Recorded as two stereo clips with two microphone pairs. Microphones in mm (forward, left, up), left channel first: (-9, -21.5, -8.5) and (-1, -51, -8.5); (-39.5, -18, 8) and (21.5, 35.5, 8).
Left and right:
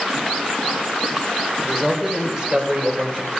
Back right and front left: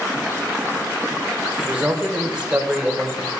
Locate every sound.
1.6 s a man speaking: 15° right, 1.4 m; by 3.3 s 35° right, 2.0 m